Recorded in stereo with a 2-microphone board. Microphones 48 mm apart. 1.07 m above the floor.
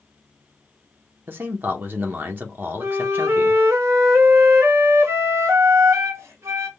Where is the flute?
85° right, 0.9 m.